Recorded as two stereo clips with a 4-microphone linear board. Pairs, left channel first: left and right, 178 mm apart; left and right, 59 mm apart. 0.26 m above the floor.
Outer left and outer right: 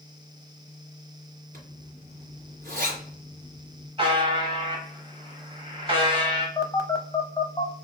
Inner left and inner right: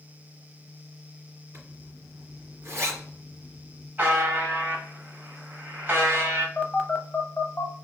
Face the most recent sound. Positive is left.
turn(degrees=20)  # may be behind; listen again after turning